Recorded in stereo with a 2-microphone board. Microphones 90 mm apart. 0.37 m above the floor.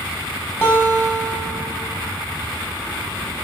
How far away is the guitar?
About 1.4 m.